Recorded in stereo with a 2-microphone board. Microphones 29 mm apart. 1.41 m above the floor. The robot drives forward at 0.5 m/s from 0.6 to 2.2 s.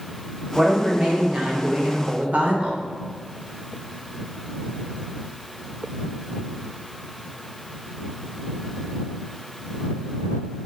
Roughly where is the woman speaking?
Right.